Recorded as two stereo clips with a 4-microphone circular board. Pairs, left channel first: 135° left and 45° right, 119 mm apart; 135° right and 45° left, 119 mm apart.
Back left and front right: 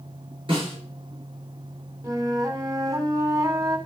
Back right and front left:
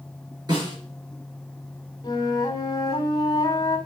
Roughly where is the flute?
Right.